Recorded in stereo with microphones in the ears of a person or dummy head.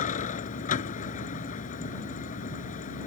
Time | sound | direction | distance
0.0 | a vehicle | 35° left (ahead or behind) | ?